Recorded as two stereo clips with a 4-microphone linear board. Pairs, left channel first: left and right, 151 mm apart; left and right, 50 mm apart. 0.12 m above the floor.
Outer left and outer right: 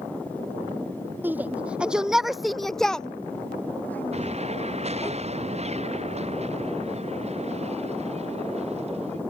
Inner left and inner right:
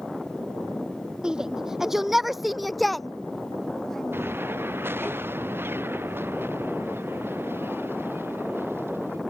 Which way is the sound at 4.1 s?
45° right (ahead or behind).